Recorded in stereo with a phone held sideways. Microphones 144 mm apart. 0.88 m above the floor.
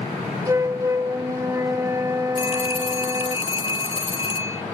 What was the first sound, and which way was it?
A flute, 20° right (ahead or behind).